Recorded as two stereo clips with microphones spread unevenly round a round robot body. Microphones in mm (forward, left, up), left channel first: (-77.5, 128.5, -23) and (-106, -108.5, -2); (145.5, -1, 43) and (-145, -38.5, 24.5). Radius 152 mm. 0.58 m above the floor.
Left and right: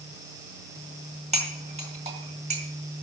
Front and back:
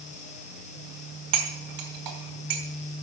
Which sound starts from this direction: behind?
Cutlery clinking, at 1.3 s.